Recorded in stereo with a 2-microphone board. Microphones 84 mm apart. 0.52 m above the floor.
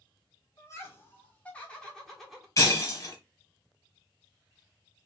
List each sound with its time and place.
0.6 s laughter: 35° left (ahead or behind), 1.7 m; by 2.5 s centre (ahead or behind), 1.7 m
2.6 s breaking glass: 45° left (ahead or behind), 1.5 m